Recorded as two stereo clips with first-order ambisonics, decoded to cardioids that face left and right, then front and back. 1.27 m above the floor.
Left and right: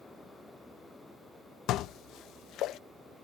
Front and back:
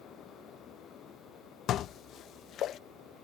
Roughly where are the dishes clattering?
Ahead left.